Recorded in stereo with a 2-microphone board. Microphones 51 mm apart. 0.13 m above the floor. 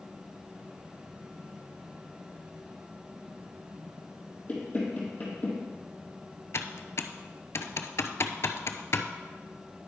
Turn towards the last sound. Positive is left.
turn(degrees=65)  # may be behind; listen again after turning